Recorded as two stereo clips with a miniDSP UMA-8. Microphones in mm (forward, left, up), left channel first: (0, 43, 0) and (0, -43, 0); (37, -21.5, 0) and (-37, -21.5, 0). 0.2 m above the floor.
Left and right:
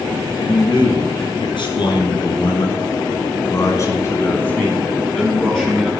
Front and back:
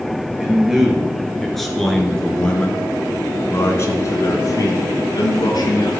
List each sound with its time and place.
0.4 s a man speaking: 100° left, 3.5 m; by 5.9 s straight ahead, 3 m